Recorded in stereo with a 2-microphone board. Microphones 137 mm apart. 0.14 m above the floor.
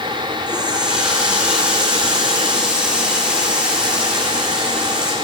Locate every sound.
0.5 s a running tap: 10° right (ahead or behind), 6 m